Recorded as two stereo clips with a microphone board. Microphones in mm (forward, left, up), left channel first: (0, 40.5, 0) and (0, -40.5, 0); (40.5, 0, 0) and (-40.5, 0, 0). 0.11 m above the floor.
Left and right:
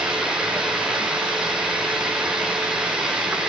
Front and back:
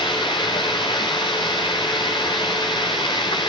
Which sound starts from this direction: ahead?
Running water, at 0.0 s.